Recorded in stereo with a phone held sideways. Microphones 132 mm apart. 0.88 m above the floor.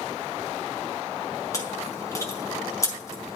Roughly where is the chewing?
Left.